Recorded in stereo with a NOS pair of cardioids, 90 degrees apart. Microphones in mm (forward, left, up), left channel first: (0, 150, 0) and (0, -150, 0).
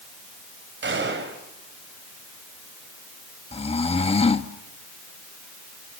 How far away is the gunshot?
About 6 m.